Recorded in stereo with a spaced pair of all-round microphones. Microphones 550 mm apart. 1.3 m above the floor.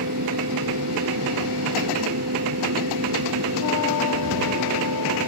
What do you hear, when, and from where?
0.0 s a fan: 30° right (ahead or behind)